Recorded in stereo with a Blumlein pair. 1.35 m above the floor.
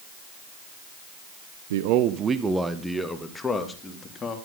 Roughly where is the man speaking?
Ahead right.